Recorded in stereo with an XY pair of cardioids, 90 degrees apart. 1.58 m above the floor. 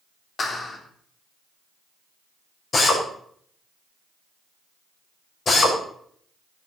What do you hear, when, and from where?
0.4 s a clap: 50° left, 3.5 m
2.7 s a drill: 55° left, 7.5 m